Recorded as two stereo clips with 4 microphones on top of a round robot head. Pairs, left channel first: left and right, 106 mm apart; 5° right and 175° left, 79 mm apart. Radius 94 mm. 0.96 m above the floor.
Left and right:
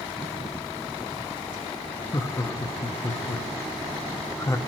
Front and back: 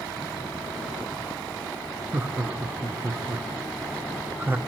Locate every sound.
2.1 s laughter: 125° left, 0.8 m